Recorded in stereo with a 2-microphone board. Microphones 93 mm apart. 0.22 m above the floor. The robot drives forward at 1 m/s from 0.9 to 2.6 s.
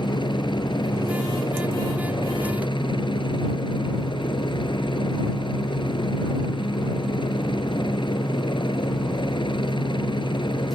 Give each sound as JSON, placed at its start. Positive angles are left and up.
{"t": 0.0, "sound": "a helicopter", "side_deg": 55}